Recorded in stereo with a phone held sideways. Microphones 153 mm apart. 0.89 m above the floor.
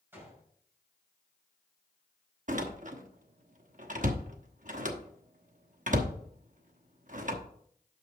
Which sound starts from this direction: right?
A door slam, at 2.5 s.